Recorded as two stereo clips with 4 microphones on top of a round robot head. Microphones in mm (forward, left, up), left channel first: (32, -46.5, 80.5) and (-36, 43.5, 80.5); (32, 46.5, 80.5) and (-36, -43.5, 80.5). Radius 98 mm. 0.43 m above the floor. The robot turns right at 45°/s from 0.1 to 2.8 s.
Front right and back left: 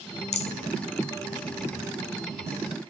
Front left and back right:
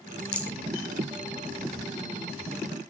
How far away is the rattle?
About 1.4 m.